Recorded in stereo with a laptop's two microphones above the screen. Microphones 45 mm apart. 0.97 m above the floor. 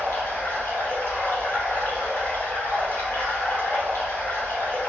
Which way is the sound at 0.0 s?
50° left (ahead or behind).